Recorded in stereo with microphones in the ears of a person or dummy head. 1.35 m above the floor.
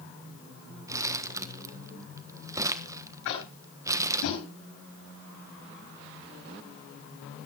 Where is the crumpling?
15° right (ahead or behind), 1.2 m.